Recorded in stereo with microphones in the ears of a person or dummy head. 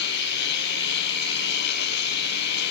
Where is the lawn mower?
65° left (ahead or behind).